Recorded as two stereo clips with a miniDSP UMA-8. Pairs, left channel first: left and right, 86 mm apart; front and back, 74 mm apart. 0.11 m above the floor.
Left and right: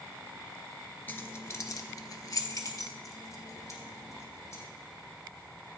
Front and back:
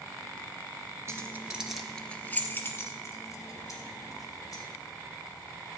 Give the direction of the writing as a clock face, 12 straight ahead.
No writing in this recording.